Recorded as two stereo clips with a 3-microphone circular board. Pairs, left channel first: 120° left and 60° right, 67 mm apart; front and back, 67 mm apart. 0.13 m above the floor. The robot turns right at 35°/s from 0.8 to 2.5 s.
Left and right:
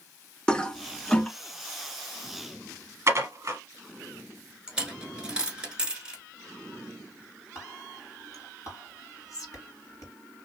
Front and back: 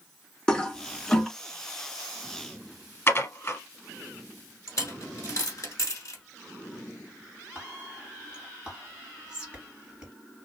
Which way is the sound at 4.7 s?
15° left.